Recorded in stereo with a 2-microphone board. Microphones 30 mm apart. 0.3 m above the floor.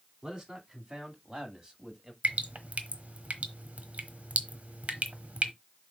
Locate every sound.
0.2 s a man speaking: 30° right (ahead or behind), 3 m; by 2.1 s 20° right (ahead or behind), 1.8 m
2.2 s dripping: 50° right (ahead or behind), 1.1 m